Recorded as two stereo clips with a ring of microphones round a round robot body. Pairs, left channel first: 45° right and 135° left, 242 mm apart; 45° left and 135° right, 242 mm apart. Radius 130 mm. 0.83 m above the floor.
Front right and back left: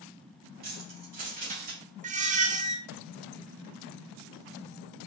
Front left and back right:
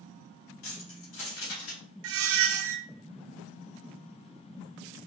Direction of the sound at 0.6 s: 80° left.